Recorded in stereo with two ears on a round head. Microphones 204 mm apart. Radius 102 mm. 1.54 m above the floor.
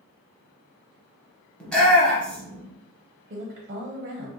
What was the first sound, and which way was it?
A shout, 5° left (ahead or behind).